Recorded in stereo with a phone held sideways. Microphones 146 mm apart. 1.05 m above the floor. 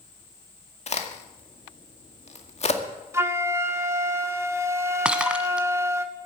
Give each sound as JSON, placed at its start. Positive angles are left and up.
{"t": 0.9, "sound": "a crack", "side_deg": 50, "distance_m": 2.0}
{"t": 3.1, "sound": "a flute", "side_deg": -20, "distance_m": 1.3}
{"t": 5.0, "sound": "breaking glass", "side_deg": -5, "distance_m": 1.2}